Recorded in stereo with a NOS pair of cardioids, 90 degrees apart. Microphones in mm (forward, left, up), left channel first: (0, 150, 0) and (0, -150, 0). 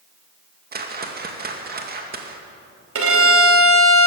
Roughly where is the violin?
Ahead right.